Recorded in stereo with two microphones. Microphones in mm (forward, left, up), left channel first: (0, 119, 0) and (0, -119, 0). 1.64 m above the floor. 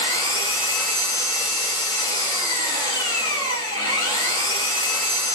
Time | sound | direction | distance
0.0 | an engine running | 35° right (ahead or behind) | 3 m